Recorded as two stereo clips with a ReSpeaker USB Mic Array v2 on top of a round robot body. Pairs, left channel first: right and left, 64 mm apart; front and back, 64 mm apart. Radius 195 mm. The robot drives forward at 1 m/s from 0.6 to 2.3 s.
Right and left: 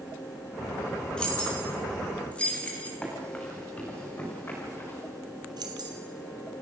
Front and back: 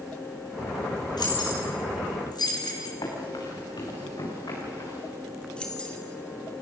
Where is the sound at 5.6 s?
75° left, 2 m.